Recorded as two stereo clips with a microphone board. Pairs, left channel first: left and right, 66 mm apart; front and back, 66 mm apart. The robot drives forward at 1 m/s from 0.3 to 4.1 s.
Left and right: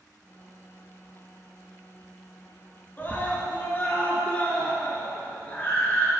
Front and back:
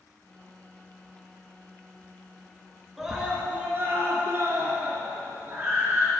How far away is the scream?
About 1.6 m.